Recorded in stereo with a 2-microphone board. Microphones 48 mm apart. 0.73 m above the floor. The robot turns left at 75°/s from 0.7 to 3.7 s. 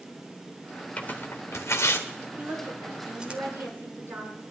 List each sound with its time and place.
1.0 s tearing paper: 30° left (ahead or behind), 1.9 m; by 3.4 s 30° right (ahead or behind), 1.9 m
2.4 s a woman speaking: 30° right, 8 m; by 4.4 s 130° right, 8 m